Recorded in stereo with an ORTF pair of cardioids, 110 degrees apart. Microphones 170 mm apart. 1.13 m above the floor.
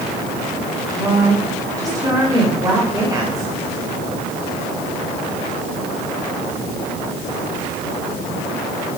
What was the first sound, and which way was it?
A woman speaking, 20° right.